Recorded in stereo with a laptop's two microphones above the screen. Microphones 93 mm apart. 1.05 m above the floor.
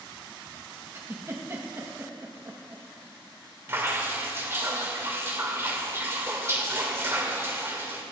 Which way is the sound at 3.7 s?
25° right (ahead or behind).